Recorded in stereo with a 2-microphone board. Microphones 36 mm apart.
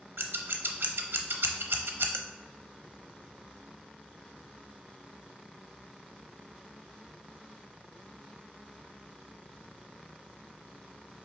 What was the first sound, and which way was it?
Scissors, 90° right.